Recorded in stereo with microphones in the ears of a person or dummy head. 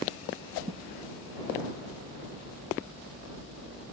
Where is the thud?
30° right (ahead or behind).